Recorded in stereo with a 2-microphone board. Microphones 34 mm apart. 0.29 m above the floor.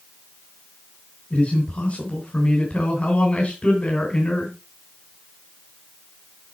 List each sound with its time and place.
1.3 s a man speaking: 35° left (ahead or behind), 2.5 m